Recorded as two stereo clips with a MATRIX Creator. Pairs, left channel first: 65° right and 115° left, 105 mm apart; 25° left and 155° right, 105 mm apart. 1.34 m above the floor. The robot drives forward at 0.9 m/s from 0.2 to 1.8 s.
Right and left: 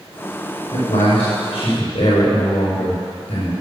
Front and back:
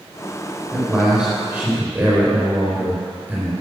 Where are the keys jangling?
No keys jangling in this recording.